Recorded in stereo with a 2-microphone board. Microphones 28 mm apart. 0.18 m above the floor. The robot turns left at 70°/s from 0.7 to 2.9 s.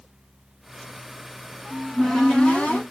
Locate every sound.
1.7 s a cupboard door: 170° right, 1.3 m; by 2.8 s 115° left, 1.3 m